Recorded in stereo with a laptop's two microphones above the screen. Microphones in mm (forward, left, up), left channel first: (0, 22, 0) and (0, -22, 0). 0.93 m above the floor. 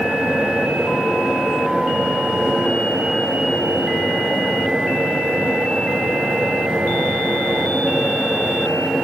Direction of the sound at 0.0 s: 15° right (ahead or behind).